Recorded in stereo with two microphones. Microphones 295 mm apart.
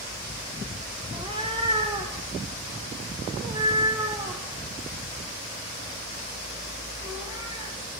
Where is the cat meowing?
15° right (ahead or behind), 3 m; by 7.7 s 10° right (ahead or behind), 8.5 m.